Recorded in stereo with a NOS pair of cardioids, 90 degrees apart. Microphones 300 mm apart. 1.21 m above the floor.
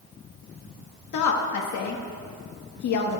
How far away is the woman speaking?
About 1.7 m.